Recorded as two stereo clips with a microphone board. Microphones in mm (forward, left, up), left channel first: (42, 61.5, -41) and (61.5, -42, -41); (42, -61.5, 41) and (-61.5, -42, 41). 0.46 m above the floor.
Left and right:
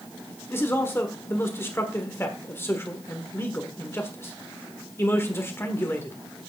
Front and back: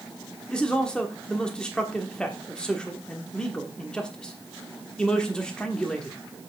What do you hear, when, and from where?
0.5 s a man speaking: 65° left, 1.4 m